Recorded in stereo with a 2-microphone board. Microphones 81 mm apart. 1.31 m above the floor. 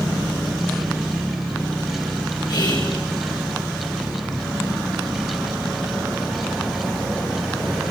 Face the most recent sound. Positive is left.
turn(degrees=75)  # may be behind; listen again after turning